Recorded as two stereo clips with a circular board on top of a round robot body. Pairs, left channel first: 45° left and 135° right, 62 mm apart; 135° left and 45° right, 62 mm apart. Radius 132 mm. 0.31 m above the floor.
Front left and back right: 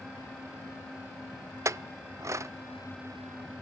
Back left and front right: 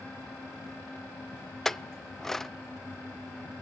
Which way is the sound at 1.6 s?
140° right.